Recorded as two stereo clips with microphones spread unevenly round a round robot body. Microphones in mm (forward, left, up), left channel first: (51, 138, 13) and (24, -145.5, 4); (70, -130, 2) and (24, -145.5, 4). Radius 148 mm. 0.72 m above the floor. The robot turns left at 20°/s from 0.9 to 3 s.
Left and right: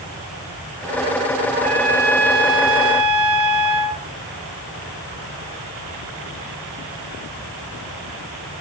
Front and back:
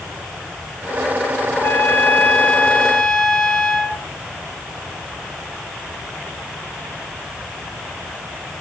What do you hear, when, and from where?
1.5 s a trumpet: 25° right, 2.5 m; by 4.0 s 55° right, 2.5 m